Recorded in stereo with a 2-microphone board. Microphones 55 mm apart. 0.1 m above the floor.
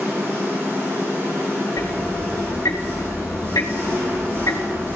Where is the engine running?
45° right (ahead or behind), 5 m.